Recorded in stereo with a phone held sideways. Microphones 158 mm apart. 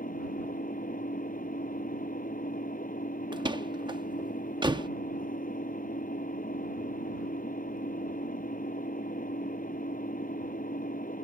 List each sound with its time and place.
0.0 s an engine running: 60° left (ahead or behind)
3.3 s a door slam: 30° right (ahead or behind)